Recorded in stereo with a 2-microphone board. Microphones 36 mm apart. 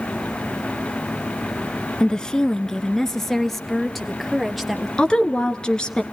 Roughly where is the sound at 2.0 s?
Centre.